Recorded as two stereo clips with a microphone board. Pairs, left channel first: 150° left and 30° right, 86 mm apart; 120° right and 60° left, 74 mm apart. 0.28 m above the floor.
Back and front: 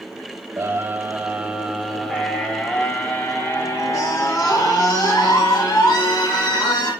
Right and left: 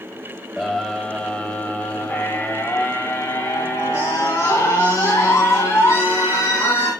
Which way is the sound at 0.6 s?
40° right.